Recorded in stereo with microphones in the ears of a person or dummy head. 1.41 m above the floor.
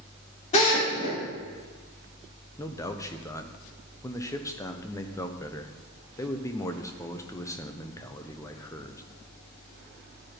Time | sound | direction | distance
0.5 | a drill | 35° left (ahead or behind) | 3.5 m
2.6 | a man speaking | 10° left (ahead or behind) | 0.8 m